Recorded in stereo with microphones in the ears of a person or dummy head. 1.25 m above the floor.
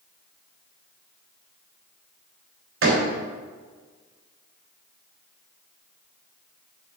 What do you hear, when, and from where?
2.8 s a door slam: 85° right, 3.5 m